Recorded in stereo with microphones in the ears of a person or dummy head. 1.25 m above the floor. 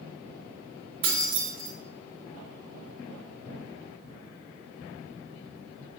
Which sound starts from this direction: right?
Keys jangling, at 1.0 s.